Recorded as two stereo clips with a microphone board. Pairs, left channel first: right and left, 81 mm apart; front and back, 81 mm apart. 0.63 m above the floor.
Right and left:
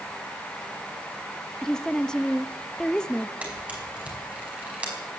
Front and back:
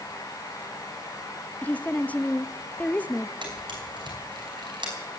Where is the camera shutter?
165° left, 4.5 m.